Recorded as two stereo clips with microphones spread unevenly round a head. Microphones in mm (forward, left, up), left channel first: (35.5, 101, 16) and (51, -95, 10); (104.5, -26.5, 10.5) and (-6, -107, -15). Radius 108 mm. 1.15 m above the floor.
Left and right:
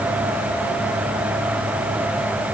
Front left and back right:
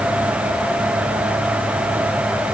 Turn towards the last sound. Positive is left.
No sound to turn to.